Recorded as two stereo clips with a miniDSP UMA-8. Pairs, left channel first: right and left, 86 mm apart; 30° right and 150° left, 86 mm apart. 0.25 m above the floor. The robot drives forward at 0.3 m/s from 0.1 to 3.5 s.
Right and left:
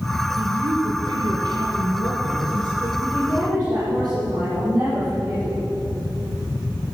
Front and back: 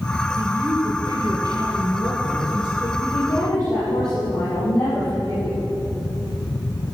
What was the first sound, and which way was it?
A woman speaking, 110° left.